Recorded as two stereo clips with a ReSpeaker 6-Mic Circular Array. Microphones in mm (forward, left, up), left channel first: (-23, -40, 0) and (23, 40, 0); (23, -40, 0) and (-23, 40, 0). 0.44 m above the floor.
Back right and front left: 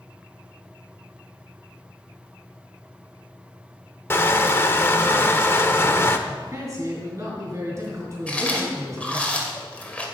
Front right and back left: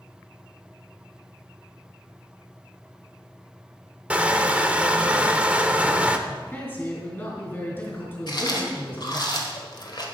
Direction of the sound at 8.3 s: 50° right.